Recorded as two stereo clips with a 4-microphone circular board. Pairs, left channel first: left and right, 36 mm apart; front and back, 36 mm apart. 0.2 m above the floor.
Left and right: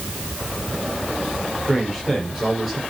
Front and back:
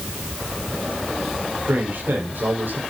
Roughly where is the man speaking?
Behind.